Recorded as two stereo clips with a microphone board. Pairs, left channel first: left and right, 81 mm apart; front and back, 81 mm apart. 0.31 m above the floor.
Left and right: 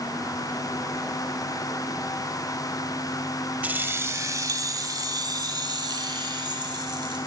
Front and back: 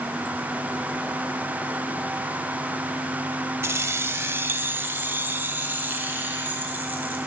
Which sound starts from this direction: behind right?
Keys jangling, at 3.6 s.